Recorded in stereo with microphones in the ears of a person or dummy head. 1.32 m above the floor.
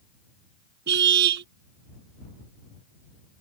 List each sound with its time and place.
0.9 s a car horn: 60° right (ahead or behind)